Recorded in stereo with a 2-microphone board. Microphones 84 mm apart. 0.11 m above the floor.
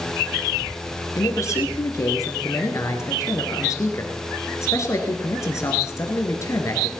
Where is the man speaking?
35° left (ahead or behind), 1.8 m.